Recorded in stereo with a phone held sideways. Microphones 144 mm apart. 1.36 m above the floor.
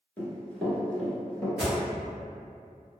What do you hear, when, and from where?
0.2 s running footsteps: 10° left (ahead or behind), 1.3 m; by 1.5 s 5° left (ahead or behind), 1.7 m
1.6 s an alarm: 5° right (ahead or behind), 1.0 m